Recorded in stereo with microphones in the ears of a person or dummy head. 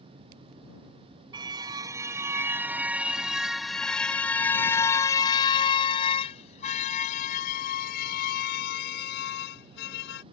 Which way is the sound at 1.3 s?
20° right (ahead or behind).